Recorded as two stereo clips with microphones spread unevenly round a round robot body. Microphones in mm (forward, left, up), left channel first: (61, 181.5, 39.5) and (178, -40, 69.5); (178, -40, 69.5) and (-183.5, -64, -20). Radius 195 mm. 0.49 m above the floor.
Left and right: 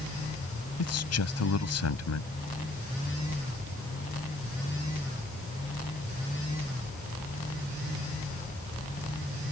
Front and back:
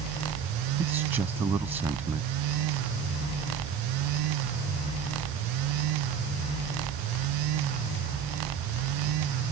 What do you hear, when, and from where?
0.8 s a man speaking: 100° left